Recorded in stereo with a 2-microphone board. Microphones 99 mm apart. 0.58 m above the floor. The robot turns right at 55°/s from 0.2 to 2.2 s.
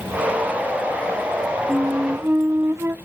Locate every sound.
1.7 s a flute: centre (ahead or behind), 0.6 m; by 3.0 s 25° right (ahead or behind), 0.6 m